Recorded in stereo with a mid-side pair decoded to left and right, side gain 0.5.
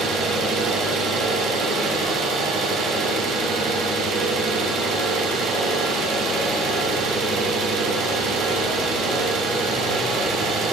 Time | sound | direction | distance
0.0 | an engine running | 65° right | 6.5 m